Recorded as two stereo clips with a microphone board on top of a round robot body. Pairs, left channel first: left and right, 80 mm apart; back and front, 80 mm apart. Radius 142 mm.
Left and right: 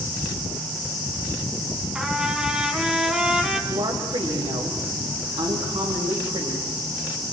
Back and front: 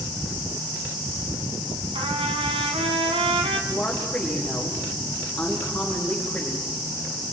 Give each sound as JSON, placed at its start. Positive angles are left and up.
{"t": 1.9, "sound": "a trumpet", "azimuth_deg": -10, "distance_m": 3.0}
{"t": 3.7, "sound": "a woman speaking", "azimuth_deg": -100, "distance_m": 5.0}